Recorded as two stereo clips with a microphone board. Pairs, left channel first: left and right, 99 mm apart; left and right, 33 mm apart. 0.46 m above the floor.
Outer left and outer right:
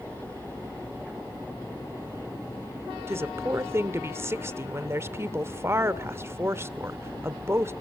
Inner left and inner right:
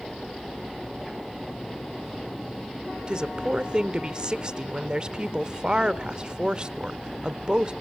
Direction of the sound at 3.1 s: 25° right (ahead or behind).